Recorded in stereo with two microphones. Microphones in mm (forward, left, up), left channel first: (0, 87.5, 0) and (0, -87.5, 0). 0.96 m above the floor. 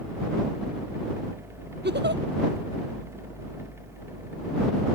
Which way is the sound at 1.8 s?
80° right.